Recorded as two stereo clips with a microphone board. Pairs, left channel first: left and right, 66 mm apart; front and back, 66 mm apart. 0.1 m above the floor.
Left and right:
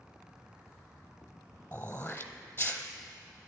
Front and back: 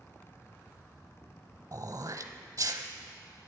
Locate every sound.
1.7 s throat clearing: 140° left, 0.8 m